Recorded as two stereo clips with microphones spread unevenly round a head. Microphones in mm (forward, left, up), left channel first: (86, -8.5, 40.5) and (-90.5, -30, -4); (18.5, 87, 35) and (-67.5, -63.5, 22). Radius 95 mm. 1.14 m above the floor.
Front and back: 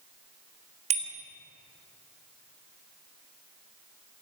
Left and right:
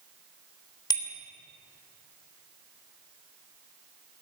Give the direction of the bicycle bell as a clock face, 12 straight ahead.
8 o'clock.